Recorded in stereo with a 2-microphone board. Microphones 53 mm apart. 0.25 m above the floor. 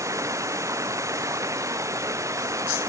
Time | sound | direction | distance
0.0 | running water | 75° right (ahead or behind) | ?